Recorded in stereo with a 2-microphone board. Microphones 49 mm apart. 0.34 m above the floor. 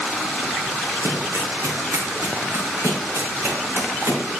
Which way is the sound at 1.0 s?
85° right.